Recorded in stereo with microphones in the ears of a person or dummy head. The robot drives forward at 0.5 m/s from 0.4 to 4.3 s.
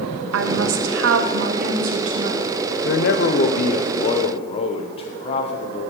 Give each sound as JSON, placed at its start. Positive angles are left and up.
{"t": 0.3, "sound": "a woman speaking", "side_deg": -80, "distance_m": 1.0}
{"t": 2.9, "sound": "a man speaking", "side_deg": 55, "distance_m": 0.9}